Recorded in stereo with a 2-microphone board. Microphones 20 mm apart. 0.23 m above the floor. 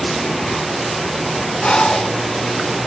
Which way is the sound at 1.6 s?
55° left (ahead or behind).